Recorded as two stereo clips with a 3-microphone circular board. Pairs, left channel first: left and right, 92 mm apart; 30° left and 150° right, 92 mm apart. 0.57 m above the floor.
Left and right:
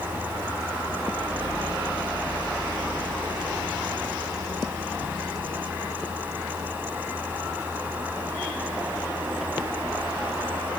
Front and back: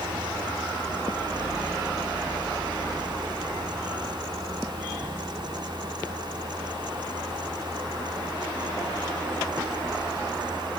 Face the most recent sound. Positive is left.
No sound to turn to.